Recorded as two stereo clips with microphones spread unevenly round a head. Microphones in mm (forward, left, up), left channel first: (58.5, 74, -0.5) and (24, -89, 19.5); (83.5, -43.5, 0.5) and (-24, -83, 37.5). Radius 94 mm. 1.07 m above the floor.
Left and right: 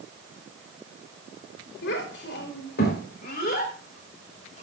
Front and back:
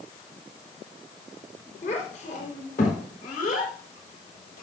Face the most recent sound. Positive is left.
turn(degrees=30)